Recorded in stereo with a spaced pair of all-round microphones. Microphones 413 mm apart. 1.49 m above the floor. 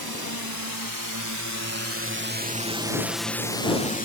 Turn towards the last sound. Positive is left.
turn(degrees=20)  # may be behind; listen again after turning